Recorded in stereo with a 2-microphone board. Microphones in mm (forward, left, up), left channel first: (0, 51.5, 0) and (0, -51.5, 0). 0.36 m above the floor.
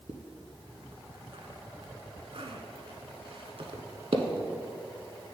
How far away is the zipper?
About 0.9 m.